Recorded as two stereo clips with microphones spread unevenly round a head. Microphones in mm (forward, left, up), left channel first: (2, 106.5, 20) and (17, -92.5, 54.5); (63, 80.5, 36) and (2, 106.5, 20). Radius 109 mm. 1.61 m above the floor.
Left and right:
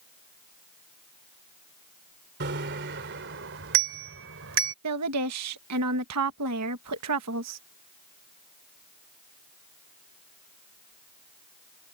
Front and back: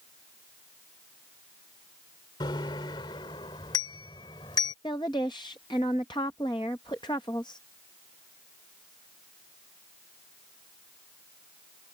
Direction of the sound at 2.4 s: 50° right.